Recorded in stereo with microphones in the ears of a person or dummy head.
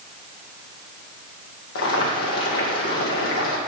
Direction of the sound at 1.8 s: 70° left (ahead or behind).